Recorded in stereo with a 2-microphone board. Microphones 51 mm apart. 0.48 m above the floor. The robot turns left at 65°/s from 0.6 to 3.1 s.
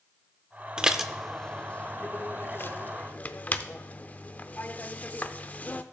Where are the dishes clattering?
15° right (ahead or behind), 0.6 m; by 5.8 s 35° left (ahead or behind), 0.6 m.